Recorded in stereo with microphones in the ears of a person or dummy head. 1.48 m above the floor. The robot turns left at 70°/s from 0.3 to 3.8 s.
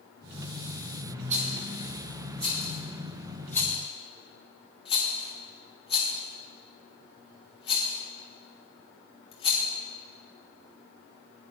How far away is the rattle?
About 1.3 m.